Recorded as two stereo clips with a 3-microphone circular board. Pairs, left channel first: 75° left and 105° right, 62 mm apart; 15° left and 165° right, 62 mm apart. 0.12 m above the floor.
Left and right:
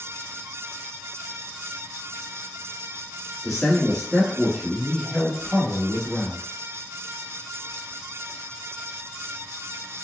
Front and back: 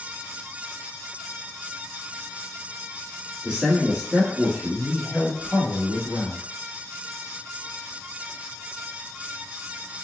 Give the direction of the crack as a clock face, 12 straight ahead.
I don't hear a crack.